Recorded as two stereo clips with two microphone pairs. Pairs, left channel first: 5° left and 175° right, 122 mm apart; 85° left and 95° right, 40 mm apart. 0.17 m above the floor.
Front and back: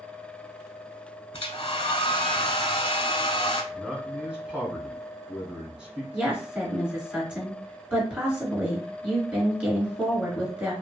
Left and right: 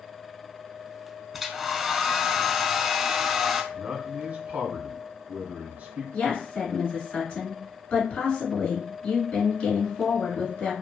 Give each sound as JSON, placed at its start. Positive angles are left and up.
{"t": 1.3, "sound": "a hair dryer", "azimuth_deg": -10, "distance_m": 0.6}
{"t": 3.7, "sound": "a man speaking", "azimuth_deg": -95, "distance_m": 1.4}
{"t": 6.1, "sound": "a woman speaking", "azimuth_deg": 105, "distance_m": 1.9}